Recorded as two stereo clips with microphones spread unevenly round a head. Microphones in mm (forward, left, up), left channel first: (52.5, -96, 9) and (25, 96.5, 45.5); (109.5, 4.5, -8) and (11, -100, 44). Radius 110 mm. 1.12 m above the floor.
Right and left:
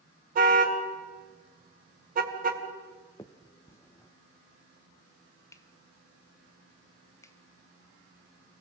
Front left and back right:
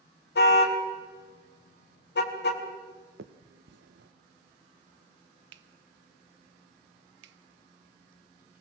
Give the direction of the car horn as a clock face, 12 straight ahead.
10 o'clock.